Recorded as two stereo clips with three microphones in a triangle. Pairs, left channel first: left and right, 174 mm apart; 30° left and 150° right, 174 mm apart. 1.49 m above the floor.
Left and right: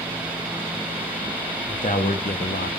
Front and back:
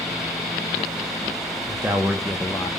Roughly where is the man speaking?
Behind left.